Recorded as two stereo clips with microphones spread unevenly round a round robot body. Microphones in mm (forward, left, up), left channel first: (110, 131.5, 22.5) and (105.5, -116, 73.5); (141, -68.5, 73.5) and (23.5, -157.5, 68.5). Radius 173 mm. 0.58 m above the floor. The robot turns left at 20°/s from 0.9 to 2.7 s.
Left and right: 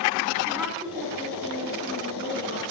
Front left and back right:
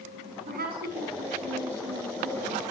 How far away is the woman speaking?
About 6 m.